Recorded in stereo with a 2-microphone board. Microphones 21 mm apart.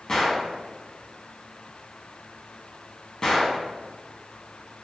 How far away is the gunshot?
About 0.6 m.